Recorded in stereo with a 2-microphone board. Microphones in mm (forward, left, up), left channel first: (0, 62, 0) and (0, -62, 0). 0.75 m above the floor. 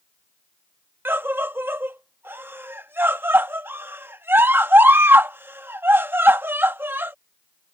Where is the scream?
15° right (ahead or behind).